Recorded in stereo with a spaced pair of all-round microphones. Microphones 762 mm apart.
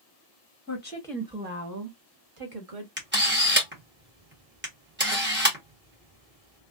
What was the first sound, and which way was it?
A woman speaking, 20° left (ahead or behind).